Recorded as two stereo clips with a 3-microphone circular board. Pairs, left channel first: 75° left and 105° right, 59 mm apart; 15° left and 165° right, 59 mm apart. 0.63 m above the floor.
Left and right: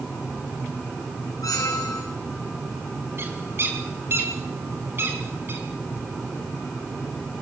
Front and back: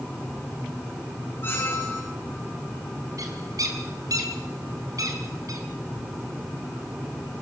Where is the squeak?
60° left, 5 m.